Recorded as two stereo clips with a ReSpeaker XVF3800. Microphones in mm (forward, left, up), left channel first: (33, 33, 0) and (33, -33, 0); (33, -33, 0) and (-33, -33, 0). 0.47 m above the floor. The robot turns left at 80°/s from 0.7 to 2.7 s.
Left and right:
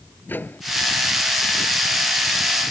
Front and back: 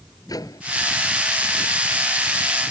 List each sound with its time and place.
0.3 s a microwave: 30° left